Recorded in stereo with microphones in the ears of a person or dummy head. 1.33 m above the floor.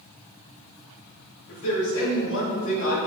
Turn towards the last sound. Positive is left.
turn(degrees=65)  # may be behind; listen again after turning